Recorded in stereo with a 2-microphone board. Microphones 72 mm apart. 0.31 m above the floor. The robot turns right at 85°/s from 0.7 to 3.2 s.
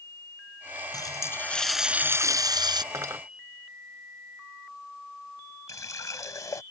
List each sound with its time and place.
0.9 s a running tap: 115° left; by 2.8 s 85° right
2.9 s cutlery clinking: 50° right (ahead or behind); by 3.2 s 40° right (ahead or behind)
5.7 s a running tap: 50° left (ahead or behind)